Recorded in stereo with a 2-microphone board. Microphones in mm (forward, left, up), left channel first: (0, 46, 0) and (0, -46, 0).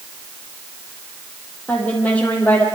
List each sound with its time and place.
1.7 s a woman speaking: 15° left (ahead or behind), 6.5 m